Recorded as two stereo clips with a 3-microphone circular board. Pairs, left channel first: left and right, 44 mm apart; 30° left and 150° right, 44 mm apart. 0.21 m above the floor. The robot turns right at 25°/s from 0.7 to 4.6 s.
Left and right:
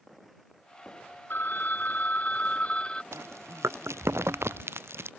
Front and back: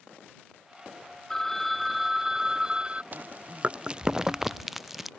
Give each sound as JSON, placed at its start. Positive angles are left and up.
{"t": 1.3, "sound": "a phone ringing", "azimuth_deg": 110}
{"t": 3.1, "sound": "chewing", "azimuth_deg": -100}